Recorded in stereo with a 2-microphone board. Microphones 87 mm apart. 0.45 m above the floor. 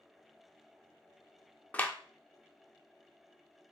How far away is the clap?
About 0.6 m.